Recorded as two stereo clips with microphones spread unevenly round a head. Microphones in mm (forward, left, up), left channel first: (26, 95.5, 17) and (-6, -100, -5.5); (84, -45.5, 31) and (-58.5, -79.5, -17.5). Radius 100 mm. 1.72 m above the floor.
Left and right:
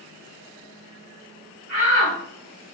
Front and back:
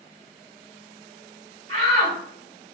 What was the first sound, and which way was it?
A shout, 130° right.